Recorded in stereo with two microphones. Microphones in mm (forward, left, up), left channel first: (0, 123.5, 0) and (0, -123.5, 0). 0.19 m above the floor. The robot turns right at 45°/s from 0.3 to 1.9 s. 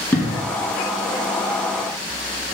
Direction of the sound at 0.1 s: 5° left (ahead or behind).